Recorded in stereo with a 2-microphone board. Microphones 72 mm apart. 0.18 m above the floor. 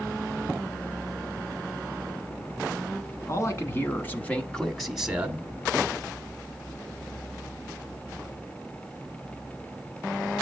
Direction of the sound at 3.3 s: 40° left (ahead or behind).